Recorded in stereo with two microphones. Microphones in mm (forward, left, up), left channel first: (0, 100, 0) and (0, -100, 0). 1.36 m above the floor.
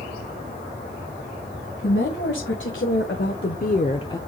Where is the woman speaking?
75° left (ahead or behind), 1.7 m; by 4.2 s 15° left (ahead or behind), 0.5 m.